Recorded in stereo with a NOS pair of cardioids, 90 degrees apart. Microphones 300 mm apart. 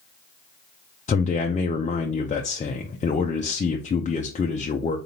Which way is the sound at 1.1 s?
25° left.